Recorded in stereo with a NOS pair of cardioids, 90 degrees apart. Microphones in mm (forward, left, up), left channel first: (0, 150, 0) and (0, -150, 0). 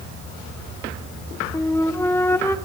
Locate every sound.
1.5 s a flute: 10° left, 1.2 m